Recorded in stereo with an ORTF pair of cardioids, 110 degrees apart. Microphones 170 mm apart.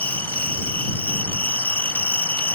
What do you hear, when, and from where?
0.0 s an insect: 10° left